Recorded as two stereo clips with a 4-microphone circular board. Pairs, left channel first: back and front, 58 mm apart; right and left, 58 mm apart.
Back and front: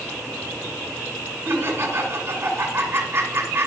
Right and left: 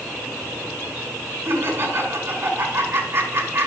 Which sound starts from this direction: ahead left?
Laughter, at 1.4 s.